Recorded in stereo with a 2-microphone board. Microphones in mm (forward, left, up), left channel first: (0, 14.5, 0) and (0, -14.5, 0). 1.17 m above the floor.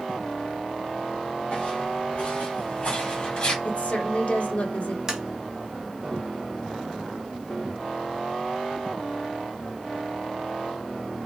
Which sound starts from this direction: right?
Tapping, at 5.1 s.